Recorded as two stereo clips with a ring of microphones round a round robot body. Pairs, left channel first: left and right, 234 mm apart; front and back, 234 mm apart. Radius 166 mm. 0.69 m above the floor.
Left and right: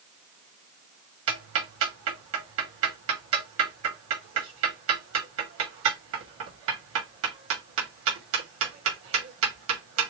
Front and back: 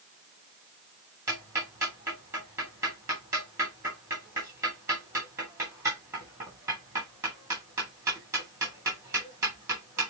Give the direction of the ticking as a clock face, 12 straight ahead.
3 o'clock.